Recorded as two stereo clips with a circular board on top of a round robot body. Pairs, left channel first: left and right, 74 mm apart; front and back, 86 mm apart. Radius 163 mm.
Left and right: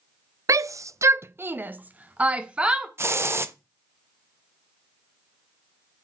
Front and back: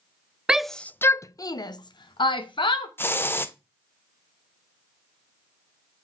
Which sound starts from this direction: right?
A shout, at 0.5 s.